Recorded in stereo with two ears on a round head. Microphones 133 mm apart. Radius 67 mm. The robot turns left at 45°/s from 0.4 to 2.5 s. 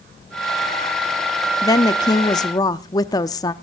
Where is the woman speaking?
25° left (ahead or behind), 0.6 m.